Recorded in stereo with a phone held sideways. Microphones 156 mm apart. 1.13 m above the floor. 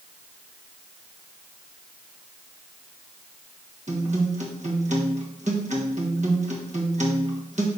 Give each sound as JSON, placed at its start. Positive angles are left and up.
{"t": 3.9, "sound": "a guitar", "side_deg": -50, "distance_m": 1.5}